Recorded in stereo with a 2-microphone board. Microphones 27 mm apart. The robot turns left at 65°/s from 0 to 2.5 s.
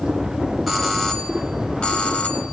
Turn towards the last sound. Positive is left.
turn(degrees=65)